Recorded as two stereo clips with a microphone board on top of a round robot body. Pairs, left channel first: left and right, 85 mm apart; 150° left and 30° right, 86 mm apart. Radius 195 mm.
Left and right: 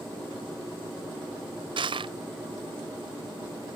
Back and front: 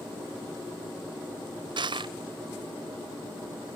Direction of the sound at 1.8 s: 60° right.